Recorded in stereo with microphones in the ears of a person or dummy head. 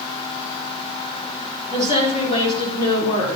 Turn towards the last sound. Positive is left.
turn(degrees=30)  # may be behind; listen again after turning